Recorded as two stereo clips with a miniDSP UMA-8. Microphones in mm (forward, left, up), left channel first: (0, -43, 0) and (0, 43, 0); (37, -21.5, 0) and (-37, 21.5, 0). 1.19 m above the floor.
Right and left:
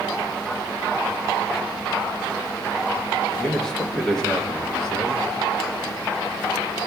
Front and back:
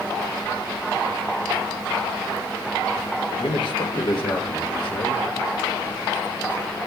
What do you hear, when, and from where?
3.4 s a man speaking: 5° right, 1.6 m